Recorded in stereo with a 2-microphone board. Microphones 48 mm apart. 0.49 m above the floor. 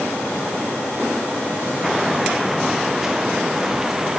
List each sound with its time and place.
1.8 s footsteps: 5° right (ahead or behind); by 4.2 s 10° right (ahead or behind)